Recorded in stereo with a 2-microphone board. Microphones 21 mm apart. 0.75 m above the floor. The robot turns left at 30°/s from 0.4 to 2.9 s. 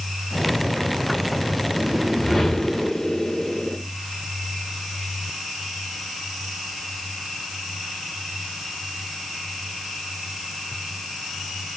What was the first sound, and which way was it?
A whoosh, 175° right.